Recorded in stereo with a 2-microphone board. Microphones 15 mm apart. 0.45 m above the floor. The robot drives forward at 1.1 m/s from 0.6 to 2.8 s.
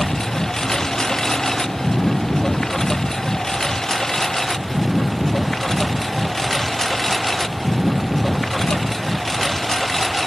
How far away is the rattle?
I don't hear a rattle.